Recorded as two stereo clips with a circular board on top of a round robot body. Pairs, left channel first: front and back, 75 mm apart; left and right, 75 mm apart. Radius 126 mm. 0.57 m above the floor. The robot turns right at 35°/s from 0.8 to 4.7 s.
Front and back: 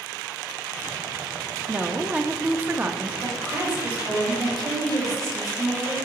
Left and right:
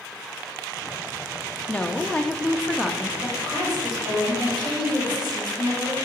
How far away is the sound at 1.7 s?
About 0.8 m.